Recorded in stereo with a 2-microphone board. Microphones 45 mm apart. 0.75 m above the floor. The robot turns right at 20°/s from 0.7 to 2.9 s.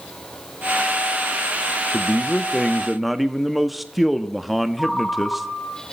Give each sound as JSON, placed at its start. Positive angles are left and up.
{"t": 1.9, "sound": "a man speaking", "side_deg": 10, "distance_m": 0.8}
{"t": 4.8, "sound": "a ringtone", "side_deg": 20, "distance_m": 3.0}